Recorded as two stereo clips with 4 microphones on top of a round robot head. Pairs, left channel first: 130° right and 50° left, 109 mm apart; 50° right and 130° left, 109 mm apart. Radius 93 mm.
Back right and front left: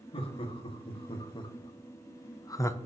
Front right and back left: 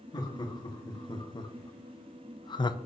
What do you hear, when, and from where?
0.1 s laughter: 100° right, 2.0 m; by 2.8 s 75° right, 0.7 m